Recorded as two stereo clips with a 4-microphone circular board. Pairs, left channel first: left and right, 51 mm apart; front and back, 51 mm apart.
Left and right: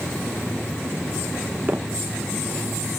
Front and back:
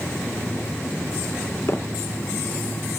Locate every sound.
1.7 s footsteps: 25° right, 0.8 m